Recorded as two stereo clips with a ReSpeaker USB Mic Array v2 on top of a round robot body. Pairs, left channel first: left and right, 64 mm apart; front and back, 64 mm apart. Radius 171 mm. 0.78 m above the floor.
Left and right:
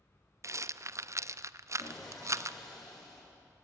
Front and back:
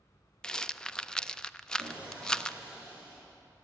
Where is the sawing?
110° left, 5.5 m.